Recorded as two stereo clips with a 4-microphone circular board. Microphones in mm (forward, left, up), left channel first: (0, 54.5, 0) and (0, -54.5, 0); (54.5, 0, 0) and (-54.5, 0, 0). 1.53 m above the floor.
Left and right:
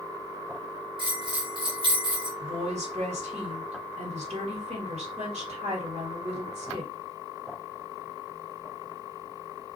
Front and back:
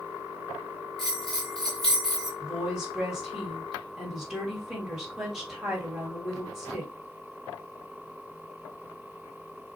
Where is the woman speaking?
95° right, 1.9 m.